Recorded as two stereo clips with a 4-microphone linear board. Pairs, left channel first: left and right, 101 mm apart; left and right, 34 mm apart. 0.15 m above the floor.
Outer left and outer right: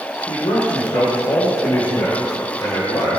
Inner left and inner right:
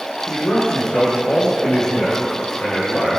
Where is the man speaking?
50° left (ahead or behind), 5 m; by 3.2 s 35° left (ahead or behind), 3.5 m.